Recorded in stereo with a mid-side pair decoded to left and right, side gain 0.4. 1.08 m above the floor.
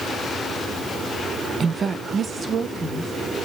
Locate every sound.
1.6 s a woman speaking: 45° right, 0.7 m; by 3.1 s 50° right, 3 m